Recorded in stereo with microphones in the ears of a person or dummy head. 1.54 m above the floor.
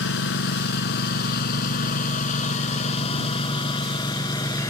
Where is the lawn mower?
65° left (ahead or behind); by 4.7 s 20° left (ahead or behind).